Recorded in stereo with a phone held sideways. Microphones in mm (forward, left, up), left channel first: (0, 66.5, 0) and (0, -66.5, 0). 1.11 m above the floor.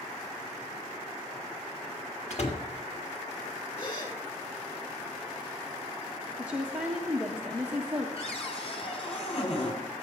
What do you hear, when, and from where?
2.3 s a door slam: 60° left (ahead or behind), 1.8 m
3.8 s a gasp: 40° left (ahead or behind), 4.5 m
6.4 s a woman speaking: 10° right (ahead or behind), 1.5 m
8.2 s a cupboard door: 50° left (ahead or behind), 3 m